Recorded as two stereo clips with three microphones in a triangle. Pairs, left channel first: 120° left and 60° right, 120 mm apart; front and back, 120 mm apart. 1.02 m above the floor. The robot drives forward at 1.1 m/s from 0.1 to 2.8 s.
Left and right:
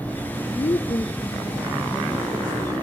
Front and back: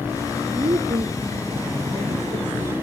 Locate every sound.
0.6 s a woman speaking: 145° left, 0.7 m; by 2.7 s 175° left, 3 m